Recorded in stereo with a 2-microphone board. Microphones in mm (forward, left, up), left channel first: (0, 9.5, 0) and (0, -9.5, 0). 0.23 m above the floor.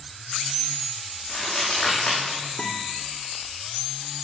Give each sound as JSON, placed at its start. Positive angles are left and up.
{"t": 1.3, "sound": "crumpling", "side_deg": 5, "distance_m": 6.0}
{"t": 2.6, "sound": "a guitar", "side_deg": 20, "distance_m": 3.5}